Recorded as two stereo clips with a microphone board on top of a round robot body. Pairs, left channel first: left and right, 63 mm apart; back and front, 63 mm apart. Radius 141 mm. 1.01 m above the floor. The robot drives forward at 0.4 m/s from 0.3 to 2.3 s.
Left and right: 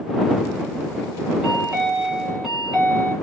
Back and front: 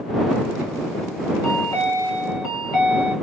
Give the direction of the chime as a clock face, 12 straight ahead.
6 o'clock.